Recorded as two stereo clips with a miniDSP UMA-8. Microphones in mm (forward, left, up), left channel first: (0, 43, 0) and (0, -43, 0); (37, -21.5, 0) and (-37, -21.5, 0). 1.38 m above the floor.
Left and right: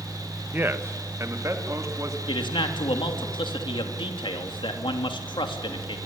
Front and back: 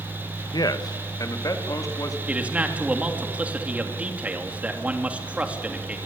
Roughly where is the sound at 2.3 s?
Left.